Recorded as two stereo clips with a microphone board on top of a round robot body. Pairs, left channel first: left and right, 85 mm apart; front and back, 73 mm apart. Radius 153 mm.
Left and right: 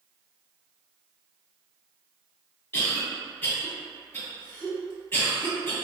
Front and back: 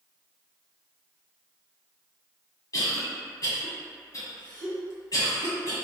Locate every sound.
2.7 s a cough: 25° left, 1.8 m